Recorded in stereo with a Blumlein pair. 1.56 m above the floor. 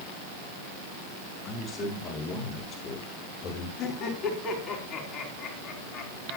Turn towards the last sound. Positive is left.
turn(degrees=25)